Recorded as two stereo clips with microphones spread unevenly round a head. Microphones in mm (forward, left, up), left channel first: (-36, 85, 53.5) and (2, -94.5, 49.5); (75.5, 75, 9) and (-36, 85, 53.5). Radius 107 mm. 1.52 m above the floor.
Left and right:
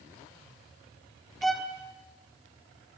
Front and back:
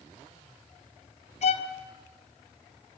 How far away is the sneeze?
I don't hear a sneeze.